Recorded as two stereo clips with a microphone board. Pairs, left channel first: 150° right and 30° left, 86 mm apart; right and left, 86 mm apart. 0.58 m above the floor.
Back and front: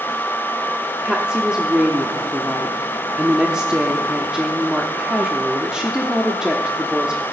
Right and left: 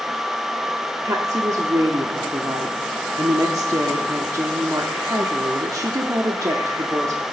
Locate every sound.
1.0 s a woman speaking: 105° left, 1.1 m